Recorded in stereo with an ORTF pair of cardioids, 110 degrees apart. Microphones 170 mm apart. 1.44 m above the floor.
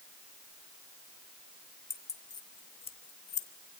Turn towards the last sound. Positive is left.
turn(degrees=55)